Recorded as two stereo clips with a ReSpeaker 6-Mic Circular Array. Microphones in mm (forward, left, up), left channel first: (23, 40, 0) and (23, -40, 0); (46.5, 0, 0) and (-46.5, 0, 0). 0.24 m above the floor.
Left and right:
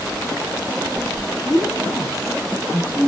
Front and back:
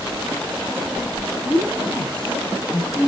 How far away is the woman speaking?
About 6 m.